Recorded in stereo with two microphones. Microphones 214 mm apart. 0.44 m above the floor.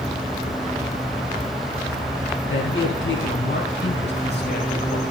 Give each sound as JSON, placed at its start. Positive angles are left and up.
{"t": 2.5, "sound": "a man speaking", "side_deg": 70, "distance_m": 5.5}